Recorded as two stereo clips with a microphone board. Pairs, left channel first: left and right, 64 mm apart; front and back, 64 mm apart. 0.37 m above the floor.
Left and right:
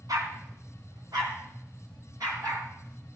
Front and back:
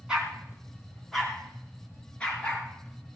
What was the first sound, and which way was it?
A dog barking, 105° right.